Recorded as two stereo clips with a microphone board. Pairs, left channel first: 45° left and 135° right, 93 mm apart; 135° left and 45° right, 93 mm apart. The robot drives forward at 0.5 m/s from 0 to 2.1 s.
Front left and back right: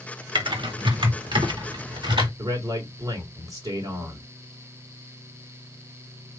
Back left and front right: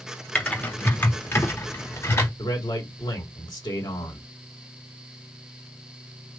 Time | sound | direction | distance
0.3 | typing on a keyboard | 150° right | 1.2 m
2.4 | a man speaking | straight behind | 2.5 m